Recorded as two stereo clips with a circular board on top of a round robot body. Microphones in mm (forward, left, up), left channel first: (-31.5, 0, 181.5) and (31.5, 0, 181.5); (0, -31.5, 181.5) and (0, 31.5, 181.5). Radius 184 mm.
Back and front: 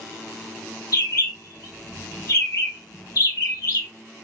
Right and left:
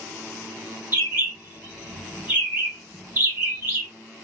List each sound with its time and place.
0.9 s a bird: 150° left, 1.3 m